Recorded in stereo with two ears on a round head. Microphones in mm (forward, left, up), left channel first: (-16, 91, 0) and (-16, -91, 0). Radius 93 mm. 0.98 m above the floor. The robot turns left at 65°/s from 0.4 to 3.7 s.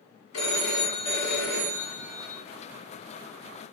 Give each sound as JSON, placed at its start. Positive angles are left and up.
{"t": 0.3, "sound": "a phone ringing", "azimuth_deg": 70, "distance_m": 1.5}